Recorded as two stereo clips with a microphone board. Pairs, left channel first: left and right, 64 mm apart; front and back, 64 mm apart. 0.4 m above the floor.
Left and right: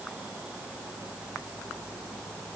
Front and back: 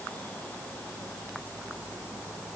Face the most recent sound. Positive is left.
No sound to turn to.